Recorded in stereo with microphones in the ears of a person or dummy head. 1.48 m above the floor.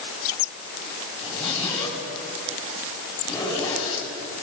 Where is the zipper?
30° left (ahead or behind), 7.5 m.